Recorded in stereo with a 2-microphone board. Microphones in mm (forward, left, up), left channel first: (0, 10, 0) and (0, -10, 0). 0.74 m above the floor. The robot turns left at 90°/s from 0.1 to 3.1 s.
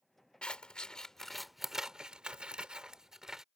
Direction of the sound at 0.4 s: 90° left.